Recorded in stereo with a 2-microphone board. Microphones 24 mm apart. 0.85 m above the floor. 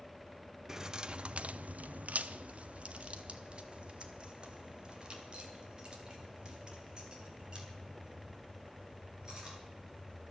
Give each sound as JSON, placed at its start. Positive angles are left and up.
{"t": 0.7, "sound": "keys jangling", "side_deg": -20, "distance_m": 0.7}